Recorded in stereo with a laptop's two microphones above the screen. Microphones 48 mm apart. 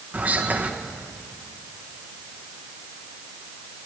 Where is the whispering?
35° right (ahead or behind), 1.0 m.